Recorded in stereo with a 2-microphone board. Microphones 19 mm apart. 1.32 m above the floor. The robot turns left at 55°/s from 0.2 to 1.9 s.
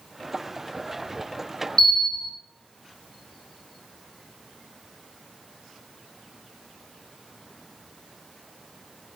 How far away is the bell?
About 1.8 m.